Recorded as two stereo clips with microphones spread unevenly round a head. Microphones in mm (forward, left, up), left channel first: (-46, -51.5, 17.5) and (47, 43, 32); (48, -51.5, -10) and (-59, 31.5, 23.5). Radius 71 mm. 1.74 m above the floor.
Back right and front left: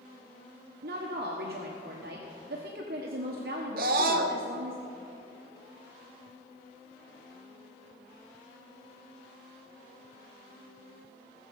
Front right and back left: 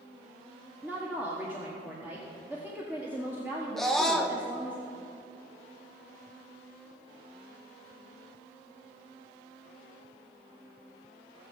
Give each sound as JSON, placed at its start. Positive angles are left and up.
{"t": 0.8, "sound": "a woman speaking", "azimuth_deg": 65, "distance_m": 1.3}
{"t": 3.8, "sound": "a scream", "azimuth_deg": 55, "distance_m": 1.2}